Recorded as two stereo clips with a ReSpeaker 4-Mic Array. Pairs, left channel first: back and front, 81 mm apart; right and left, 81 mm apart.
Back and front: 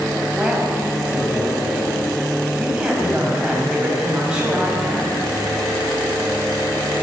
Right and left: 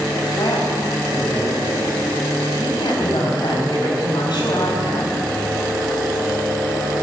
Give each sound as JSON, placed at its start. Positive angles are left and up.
{"t": 0.3, "sound": "a man speaking", "azimuth_deg": -80, "distance_m": 5.0}